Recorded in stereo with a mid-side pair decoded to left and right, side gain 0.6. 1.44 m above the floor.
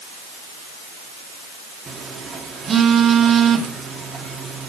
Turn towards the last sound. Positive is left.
turn(degrees=-30)